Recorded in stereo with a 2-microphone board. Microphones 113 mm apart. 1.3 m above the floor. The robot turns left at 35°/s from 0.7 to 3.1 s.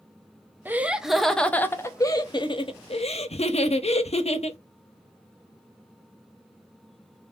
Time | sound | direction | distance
0.7 | laughter | 165° right | 0.6 m